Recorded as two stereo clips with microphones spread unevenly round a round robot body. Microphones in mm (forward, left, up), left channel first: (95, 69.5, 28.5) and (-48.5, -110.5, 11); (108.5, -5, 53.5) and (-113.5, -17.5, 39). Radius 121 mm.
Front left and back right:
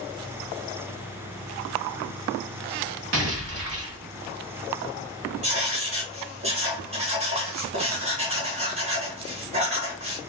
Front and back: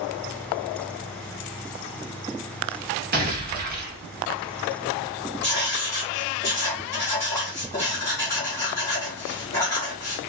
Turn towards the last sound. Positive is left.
turn(degrees=-75)